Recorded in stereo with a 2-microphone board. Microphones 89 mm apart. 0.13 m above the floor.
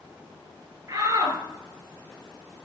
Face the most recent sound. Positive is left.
turn(degrees=-40)  # may be behind; listen again after turning